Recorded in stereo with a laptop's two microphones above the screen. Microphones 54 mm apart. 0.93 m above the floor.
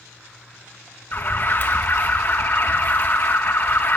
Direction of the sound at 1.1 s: 45° left (ahead or behind).